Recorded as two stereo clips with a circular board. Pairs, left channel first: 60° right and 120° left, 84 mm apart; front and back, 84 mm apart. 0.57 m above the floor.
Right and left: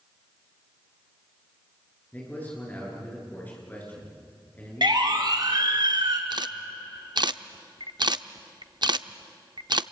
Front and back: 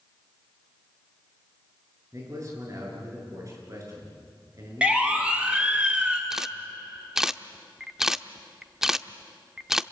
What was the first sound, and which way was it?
A man speaking, 130° right.